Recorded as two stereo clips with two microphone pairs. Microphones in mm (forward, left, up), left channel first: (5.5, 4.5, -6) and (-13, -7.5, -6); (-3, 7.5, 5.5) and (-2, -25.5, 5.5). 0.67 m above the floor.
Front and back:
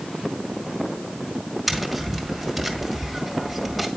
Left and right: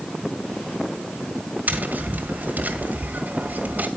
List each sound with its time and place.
1.7 s tapping: 60° right, 1.6 m